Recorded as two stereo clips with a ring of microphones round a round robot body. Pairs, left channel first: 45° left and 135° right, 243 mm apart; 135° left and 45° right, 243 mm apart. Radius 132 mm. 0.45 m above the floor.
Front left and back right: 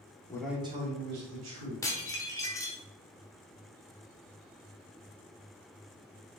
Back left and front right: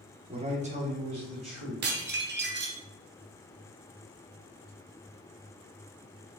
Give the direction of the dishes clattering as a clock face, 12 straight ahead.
1 o'clock.